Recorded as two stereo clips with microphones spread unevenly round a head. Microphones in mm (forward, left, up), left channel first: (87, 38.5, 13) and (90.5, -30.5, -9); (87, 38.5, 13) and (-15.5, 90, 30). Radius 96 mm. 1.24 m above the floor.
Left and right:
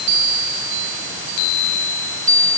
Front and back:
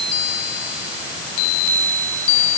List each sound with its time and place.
Only background noise.